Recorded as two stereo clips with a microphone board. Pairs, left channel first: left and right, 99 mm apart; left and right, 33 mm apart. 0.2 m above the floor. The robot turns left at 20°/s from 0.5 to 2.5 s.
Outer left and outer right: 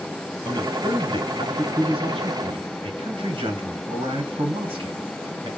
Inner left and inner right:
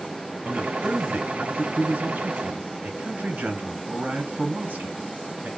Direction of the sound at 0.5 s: 45° right (ahead or behind).